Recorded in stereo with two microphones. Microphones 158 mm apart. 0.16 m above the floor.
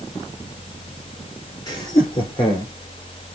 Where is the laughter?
25° left (ahead or behind), 3.5 m; by 2.7 s 35° left (ahead or behind), 5 m.